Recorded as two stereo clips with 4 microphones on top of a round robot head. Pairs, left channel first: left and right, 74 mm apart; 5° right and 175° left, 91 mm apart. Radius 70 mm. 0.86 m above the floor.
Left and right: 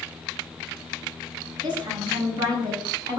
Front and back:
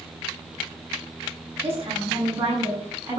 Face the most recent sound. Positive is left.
turn(degrees=-115)